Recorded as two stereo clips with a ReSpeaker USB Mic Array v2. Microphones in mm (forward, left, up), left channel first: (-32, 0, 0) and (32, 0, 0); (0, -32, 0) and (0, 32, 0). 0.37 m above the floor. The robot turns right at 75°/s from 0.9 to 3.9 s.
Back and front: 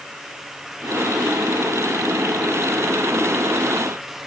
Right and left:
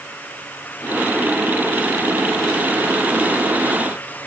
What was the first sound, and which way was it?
Only background noise.